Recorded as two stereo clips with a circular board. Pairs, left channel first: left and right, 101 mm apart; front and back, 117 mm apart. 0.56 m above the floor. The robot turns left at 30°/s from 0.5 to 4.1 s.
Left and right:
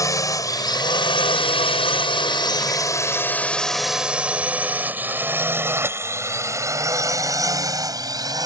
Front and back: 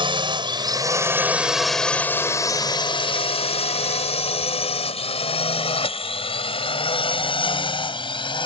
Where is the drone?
145° left; by 8.5 s 45° right.